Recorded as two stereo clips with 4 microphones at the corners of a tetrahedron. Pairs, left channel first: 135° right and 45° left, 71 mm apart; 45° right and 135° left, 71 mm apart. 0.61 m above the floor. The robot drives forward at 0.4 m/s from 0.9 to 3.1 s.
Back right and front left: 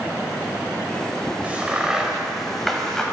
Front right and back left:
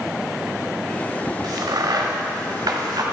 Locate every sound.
1.4 s a crack: 115° left, 0.9 m; by 3.0 s 140° left, 1.3 m